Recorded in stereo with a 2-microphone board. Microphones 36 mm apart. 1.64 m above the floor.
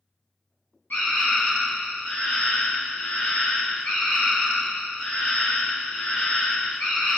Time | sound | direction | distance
0.9 | a scream | 65° left (ahead or behind) | 1.1 m